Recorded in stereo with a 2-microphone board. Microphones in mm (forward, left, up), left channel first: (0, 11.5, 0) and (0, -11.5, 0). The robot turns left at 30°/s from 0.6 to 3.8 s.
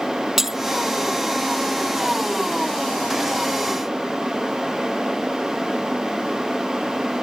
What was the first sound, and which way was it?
Breaking glass, 20° right (ahead or behind).